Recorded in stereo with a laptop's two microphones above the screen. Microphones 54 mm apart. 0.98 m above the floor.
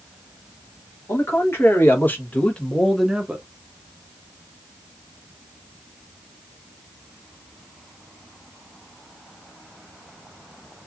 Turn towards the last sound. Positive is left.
turn(degrees=-25)  # may be behind; listen again after turning